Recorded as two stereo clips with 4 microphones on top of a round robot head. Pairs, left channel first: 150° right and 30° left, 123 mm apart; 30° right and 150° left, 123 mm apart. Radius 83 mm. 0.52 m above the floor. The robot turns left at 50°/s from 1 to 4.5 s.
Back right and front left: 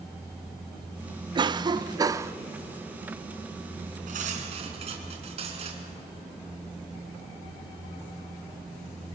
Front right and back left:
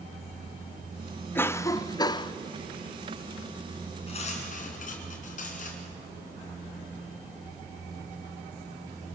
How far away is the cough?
About 0.7 m.